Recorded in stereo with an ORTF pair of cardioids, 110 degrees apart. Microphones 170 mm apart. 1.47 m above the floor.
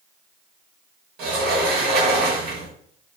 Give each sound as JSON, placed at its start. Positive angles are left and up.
{"t": 1.2, "sound": "a sliding door", "azimuth_deg": -65, "distance_m": 1.0}